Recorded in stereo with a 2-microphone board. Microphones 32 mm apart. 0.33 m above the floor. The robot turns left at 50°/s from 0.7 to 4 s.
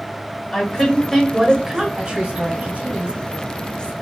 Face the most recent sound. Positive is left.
turn(degrees=-125)